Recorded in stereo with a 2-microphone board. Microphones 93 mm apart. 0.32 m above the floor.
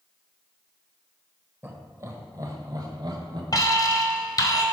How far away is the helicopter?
I don't hear a helicopter.